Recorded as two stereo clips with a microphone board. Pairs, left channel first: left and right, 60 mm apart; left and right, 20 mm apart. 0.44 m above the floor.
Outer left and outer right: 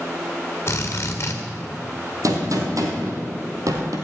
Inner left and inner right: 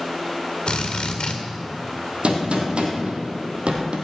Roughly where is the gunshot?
Right.